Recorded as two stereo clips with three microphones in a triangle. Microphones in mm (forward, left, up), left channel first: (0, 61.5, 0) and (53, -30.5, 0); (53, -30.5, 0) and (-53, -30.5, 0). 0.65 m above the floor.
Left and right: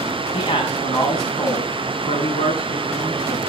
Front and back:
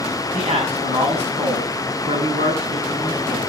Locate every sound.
0.3 s a man speaking: 165° left, 5.5 m